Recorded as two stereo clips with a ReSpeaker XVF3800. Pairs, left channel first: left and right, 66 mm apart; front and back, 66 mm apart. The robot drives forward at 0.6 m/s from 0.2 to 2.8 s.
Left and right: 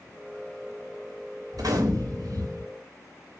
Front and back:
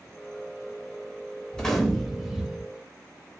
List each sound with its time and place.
1.5 s a gunshot: 75° right, 2.0 m; by 2.7 s 95° right, 1.9 m